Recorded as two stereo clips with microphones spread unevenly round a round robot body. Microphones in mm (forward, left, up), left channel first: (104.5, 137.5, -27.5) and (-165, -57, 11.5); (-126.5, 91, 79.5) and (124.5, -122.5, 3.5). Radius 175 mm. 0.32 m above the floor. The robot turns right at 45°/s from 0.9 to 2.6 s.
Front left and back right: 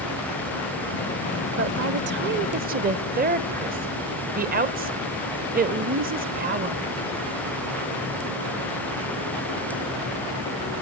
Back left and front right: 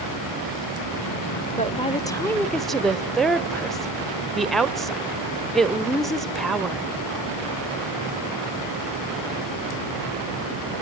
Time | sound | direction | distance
1.6 | a woman speaking | 145° right | 1.1 m